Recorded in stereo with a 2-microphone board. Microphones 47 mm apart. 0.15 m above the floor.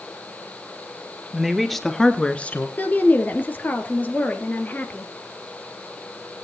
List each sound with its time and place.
1.3 s a woman speaking: 5° right (ahead or behind), 2.5 m; by 2.7 s 40° left (ahead or behind), 1.6 m
2.8 s a woman speaking: 35° left (ahead or behind), 3 m